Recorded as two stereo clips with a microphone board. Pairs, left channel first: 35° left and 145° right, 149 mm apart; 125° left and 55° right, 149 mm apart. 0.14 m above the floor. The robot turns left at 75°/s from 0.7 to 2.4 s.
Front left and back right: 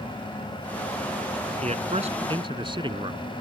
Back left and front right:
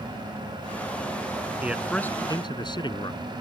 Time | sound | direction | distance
1.6 | a man speaking | 130° right | ?